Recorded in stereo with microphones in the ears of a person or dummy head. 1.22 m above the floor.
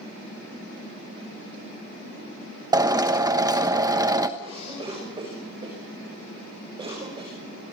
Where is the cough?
25° right (ahead or behind), 6.5 m.